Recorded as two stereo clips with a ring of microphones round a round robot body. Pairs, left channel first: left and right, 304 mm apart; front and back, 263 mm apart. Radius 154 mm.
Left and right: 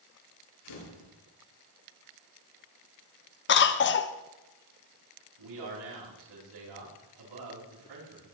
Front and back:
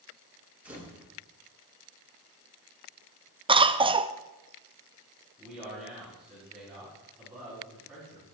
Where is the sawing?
No sawing in this recording.